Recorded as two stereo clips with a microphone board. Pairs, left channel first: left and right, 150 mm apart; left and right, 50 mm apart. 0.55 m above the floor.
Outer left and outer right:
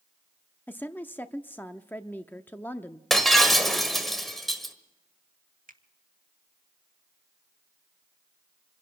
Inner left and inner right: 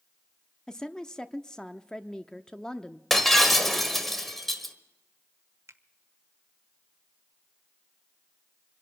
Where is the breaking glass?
Centre (ahead or behind), 1.5 m.